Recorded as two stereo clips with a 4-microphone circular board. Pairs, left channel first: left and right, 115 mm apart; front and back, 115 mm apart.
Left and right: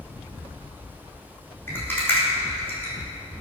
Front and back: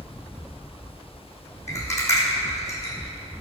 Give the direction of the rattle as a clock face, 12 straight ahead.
11 o'clock.